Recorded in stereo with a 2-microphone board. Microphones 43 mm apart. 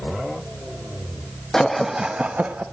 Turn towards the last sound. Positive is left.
turn(degrees=-45)  # may be behind; listen again after turning